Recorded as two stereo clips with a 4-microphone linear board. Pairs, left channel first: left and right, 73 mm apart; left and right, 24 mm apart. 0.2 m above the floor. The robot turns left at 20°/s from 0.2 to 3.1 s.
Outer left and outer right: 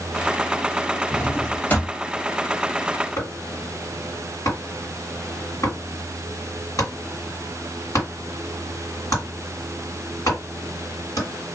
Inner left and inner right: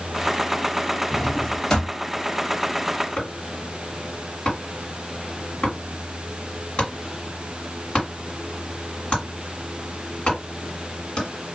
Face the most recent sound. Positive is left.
turn(degrees=50)  # may be behind; listen again after turning